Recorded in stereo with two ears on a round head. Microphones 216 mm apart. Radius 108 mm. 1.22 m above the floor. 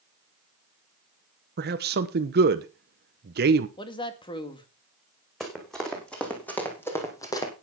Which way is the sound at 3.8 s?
20° left (ahead or behind).